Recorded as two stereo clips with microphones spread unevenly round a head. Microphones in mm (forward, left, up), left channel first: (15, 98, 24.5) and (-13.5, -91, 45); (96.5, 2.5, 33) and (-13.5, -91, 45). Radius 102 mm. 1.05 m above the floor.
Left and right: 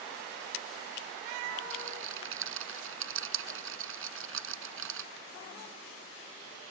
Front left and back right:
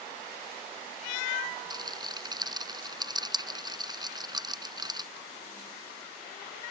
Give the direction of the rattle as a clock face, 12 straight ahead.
3 o'clock.